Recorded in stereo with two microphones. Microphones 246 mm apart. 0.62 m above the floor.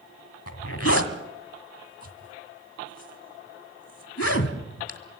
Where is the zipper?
65° left (ahead or behind), 1.8 m.